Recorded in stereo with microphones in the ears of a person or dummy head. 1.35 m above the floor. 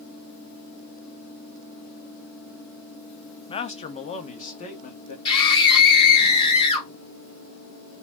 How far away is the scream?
About 2 m.